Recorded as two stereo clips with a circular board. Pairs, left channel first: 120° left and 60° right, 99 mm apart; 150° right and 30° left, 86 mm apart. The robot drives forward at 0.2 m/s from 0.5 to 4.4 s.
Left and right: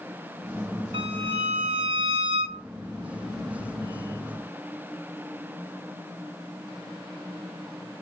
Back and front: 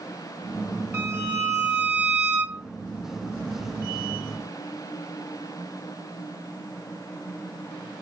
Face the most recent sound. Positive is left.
turn(degrees=-55)